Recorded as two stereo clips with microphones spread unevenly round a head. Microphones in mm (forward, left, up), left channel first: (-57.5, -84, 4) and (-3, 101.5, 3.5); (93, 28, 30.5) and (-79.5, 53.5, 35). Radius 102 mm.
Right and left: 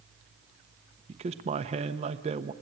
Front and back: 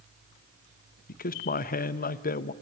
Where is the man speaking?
15° left, 0.9 m.